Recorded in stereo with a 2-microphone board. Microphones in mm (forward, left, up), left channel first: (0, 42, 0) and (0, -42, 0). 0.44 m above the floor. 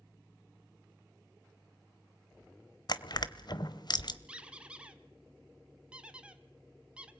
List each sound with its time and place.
2.9 s crushing: 60° left (ahead or behind), 0.9 m
4.3 s a squeak: 15° right (ahead or behind), 1.1 m